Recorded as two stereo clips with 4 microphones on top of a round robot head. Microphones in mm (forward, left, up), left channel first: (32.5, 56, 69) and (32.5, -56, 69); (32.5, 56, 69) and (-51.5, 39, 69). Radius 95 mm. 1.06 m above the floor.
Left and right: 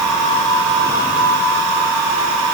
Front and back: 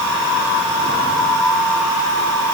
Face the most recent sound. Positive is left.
No sound to turn to.